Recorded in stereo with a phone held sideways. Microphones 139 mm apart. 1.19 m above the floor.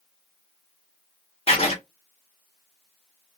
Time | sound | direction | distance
1.5 | writing | 45° left (ahead or behind) | 1.2 m